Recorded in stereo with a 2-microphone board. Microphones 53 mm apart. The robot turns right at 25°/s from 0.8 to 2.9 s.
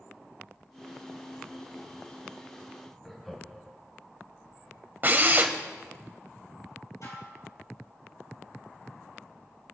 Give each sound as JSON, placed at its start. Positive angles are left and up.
{"t": 3.0, "sound": "laughter", "side_deg": 5, "distance_m": 2.0}
{"t": 5.0, "sound": "a drill", "side_deg": -40, "distance_m": 1.5}
{"t": 7.0, "sound": "dishes clattering", "side_deg": 75, "distance_m": 6.0}